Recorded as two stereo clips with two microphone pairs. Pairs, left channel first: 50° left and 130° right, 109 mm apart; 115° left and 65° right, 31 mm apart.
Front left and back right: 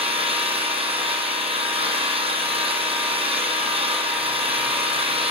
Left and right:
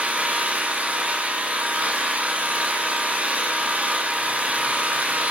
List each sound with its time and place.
0.0 s an engine running: 105° right, 2.5 m